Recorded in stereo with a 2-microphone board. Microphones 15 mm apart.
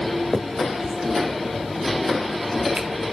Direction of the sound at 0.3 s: 45° right (ahead or behind).